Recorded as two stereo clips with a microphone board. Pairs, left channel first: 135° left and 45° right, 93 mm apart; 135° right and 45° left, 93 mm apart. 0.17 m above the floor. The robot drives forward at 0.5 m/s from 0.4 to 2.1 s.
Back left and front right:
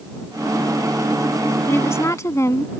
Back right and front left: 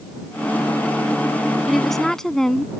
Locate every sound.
1.7 s a woman speaking: 130° left; by 2.7 s 145° left